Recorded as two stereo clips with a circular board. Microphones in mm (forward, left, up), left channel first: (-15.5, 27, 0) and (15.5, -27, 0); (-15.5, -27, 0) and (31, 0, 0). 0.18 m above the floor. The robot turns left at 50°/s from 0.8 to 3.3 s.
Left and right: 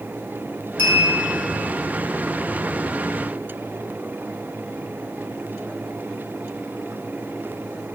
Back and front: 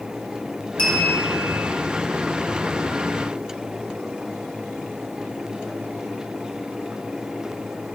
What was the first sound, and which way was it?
A clink, 155° left.